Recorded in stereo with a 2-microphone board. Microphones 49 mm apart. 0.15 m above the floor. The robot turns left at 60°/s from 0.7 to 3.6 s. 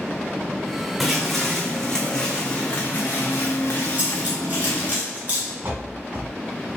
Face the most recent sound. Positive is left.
turn(degrees=-45)  # may be behind; listen again after turning